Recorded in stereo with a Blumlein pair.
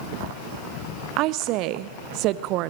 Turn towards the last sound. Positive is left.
turn(degrees=-40)